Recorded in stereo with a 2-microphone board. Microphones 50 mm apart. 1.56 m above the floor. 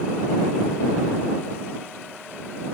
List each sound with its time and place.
Only background noise.